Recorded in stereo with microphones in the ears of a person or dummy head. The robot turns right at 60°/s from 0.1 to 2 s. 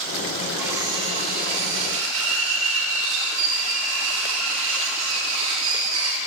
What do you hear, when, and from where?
0.6 s cutlery clinking: 175° right, 1.2 m; by 6.2 s 90° right, 1.2 m